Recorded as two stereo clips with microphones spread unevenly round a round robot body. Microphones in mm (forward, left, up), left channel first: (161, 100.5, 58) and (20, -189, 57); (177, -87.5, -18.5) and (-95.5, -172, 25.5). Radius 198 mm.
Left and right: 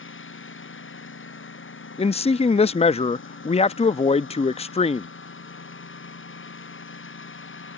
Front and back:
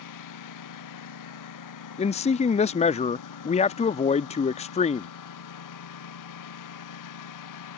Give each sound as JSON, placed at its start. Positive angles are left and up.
{"t": 0.0, "sound": "a lawn mower", "azimuth_deg": 10}
{"t": 2.0, "sound": "a man speaking", "azimuth_deg": 5}